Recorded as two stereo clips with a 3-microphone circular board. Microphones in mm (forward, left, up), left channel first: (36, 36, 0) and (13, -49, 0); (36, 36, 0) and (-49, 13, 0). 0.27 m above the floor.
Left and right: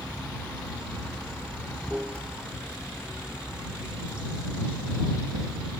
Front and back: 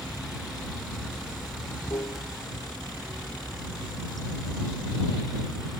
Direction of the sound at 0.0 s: 25° right.